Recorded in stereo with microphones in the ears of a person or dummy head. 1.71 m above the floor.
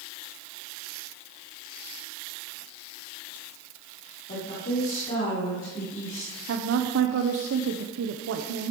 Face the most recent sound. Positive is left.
turn(degrees=-65)  # may be behind; listen again after turning